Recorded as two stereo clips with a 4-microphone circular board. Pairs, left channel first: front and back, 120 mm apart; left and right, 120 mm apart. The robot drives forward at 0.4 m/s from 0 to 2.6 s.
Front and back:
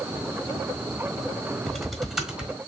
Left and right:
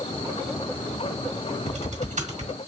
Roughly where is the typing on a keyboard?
Right.